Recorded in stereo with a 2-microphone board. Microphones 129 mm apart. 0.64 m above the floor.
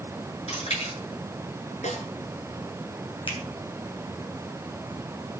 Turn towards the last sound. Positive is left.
turn(degrees=40)  # may be behind; listen again after turning